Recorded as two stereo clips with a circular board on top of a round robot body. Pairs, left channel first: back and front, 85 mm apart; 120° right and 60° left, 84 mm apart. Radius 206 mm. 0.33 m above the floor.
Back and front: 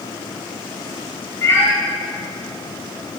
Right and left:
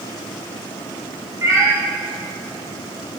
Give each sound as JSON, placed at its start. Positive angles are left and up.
{"t": 1.4, "sound": "a cat meowing", "azimuth_deg": 120, "distance_m": 1.8}